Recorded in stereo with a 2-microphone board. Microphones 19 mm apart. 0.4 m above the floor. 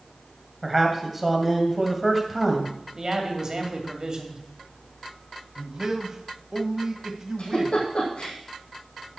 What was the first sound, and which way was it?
A man speaking, 5° right (ahead or behind).